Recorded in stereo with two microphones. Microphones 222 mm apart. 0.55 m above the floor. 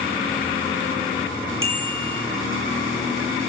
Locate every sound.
1.6 s a bicycle bell: 65° right (ahead or behind), 10 m